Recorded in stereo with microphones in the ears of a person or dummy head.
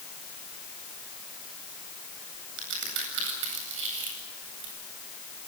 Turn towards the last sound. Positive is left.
turn(degrees=-70)  # may be behind; listen again after turning